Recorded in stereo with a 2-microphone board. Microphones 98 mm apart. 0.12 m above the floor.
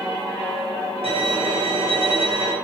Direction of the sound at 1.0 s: 75° right (ahead or behind).